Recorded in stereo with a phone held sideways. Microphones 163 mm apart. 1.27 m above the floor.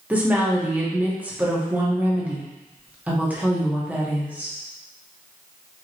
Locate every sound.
0.1 s a woman speaking: 10° right (ahead or behind), 1.3 m